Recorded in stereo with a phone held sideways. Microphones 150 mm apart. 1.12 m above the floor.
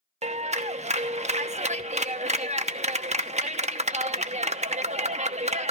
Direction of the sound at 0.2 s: 45° right (ahead or behind).